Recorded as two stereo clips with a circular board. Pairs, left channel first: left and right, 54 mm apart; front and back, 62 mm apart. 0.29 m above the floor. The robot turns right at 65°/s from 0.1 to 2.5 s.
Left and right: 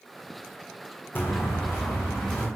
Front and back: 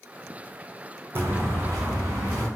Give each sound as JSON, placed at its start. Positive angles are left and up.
{"t": 1.1, "sound": "footsteps", "azimuth_deg": 135, "distance_m": 0.5}